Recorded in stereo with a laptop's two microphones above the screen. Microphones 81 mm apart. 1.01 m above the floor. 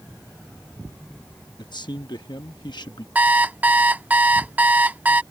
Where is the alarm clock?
20° right (ahead or behind).